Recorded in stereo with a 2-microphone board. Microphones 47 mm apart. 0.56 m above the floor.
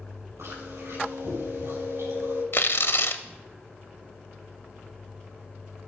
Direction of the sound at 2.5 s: 60° left (ahead or behind).